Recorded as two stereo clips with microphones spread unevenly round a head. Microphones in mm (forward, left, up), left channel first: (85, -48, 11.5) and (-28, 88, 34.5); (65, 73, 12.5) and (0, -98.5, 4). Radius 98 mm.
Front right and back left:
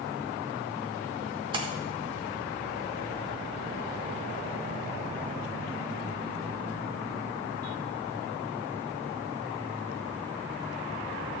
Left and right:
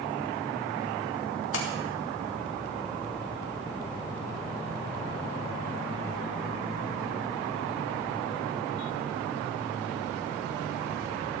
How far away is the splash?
About 2.5 m.